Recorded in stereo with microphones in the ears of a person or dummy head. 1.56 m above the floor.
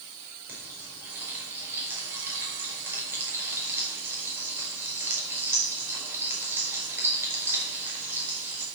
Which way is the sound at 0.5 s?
10° right (ahead or behind).